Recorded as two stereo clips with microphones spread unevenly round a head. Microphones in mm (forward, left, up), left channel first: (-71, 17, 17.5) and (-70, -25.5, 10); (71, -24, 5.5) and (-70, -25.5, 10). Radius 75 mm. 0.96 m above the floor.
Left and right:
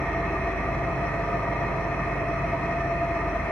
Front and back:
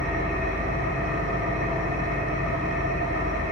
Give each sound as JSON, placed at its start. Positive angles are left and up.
{"t": 0.0, "sound": "an engine running", "azimuth_deg": 135, "distance_m": 1.6}